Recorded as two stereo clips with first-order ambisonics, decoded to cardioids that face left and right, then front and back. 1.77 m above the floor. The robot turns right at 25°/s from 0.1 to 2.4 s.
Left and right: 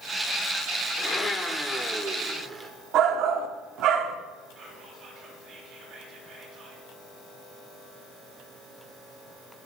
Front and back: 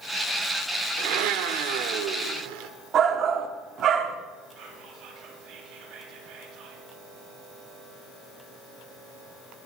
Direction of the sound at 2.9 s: 125° right.